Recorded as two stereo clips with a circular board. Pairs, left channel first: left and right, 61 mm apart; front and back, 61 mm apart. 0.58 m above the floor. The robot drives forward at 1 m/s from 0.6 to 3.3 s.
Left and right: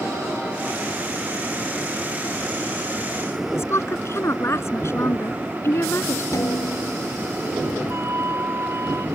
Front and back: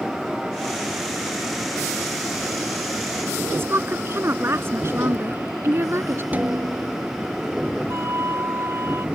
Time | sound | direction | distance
3.5 | a woman speaking | 135° left | ?
6.3 | a snare drum | 120° left | ?
7.9 | a flute | 135° right | ?